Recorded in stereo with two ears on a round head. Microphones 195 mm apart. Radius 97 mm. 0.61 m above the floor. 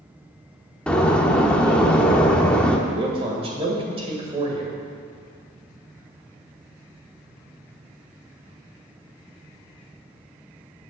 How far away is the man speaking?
About 2.5 m.